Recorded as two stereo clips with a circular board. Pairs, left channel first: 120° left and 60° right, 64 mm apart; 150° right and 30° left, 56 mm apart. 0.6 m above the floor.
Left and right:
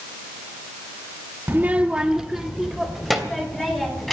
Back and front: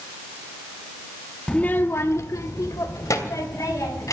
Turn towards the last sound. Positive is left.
turn(degrees=-150)